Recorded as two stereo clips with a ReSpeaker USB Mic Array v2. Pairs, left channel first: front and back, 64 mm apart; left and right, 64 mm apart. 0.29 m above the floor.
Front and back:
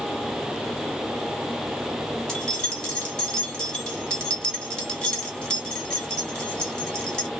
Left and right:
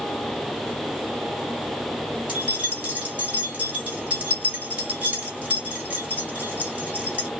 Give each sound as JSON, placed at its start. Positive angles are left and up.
{"t": 2.3, "sound": "keys jangling", "azimuth_deg": -55, "distance_m": 1.0}